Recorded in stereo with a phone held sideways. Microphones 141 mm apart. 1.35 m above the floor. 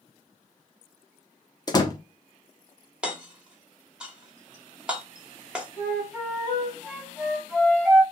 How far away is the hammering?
About 0.9 m.